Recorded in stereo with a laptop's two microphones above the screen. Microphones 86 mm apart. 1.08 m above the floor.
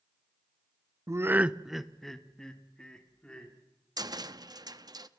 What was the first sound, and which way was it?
Laughter, 35° right (ahead or behind).